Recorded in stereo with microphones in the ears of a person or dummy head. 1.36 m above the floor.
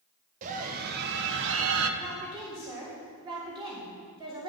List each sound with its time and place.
0.4 s a scream: 40° right (ahead or behind), 1.2 m; by 1.9 s 75° right (ahead or behind), 1.2 m
2.0 s a woman speaking: 20° right (ahead or behind), 3 m